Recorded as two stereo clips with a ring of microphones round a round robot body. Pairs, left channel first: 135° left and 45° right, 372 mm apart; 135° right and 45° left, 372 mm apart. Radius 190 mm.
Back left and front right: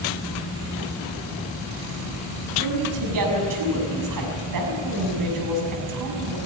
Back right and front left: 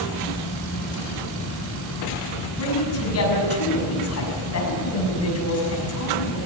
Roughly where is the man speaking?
Right.